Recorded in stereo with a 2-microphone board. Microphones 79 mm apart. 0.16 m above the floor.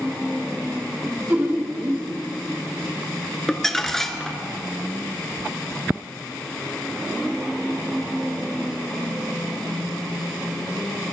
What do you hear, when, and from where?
1.0 s laughter: 25° right (ahead or behind), 1.3 m
3.5 s crumpling: 5° left (ahead or behind), 0.9 m